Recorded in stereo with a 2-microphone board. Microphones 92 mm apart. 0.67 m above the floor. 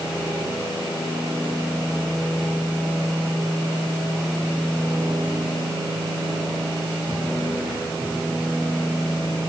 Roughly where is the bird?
I don't hear a bird.